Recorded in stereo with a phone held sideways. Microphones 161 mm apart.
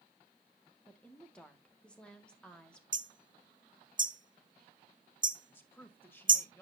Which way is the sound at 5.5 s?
15° left (ahead or behind).